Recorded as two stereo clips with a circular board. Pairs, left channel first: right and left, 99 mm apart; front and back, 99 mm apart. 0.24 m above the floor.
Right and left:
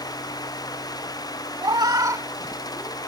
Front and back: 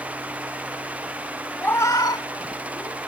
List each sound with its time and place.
1.6 s a cat meowing: 70° left; by 3.0 s 20° left